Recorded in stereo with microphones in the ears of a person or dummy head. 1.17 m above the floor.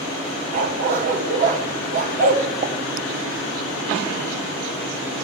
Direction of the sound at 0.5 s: 45° right (ahead or behind).